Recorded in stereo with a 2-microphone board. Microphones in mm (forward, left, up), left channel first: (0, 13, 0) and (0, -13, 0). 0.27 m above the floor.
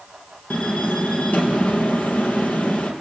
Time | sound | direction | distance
0.5 | a door slam | 80° left | 4.5 m